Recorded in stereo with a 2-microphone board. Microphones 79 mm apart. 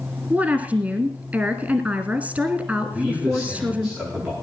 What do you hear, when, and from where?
0.3 s a woman speaking: 15° right (ahead or behind), 1.3 m
2.9 s a man speaking: 5° right (ahead or behind), 9 m